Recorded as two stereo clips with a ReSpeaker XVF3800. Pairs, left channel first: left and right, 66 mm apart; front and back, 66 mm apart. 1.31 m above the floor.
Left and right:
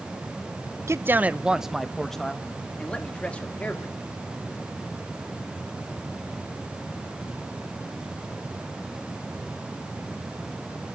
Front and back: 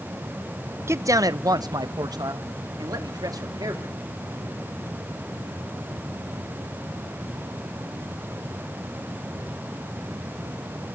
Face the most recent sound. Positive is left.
turn(degrees=160)